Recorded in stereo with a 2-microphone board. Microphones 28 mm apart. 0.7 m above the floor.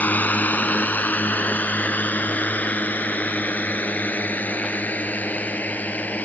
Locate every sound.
0.0 s a drone: 80° left; by 6.2 s 75° left (ahead or behind)